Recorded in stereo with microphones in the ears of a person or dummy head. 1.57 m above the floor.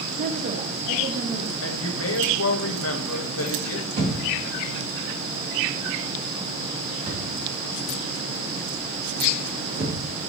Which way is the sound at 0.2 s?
45° right (ahead or behind).